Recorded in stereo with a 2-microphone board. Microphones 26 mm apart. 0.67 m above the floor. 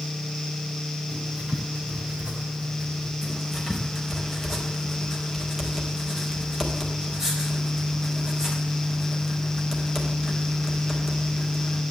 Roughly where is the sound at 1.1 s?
Right.